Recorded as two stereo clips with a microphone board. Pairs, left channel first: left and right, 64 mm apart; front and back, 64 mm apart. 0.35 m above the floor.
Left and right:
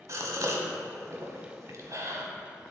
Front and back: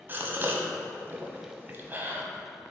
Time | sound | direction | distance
0.1 | a gasp | 125° right | 1.0 m